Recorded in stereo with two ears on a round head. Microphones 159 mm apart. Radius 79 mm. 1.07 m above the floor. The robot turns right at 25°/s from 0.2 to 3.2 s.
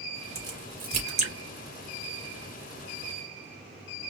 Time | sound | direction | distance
0.3 | a crack | 20° right (ahead or behind) | 3 m